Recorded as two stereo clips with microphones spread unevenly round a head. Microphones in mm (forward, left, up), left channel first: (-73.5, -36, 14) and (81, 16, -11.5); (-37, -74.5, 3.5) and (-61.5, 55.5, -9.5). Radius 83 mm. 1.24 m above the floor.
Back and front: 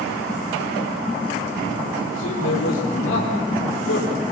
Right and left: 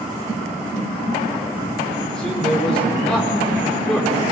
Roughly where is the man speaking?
Behind.